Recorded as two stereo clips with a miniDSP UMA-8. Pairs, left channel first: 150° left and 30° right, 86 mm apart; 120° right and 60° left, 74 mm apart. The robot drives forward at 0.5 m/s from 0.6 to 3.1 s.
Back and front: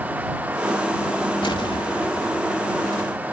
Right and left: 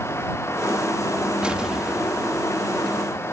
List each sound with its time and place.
1.4 s an explosion: 135° left; by 2.6 s 145° left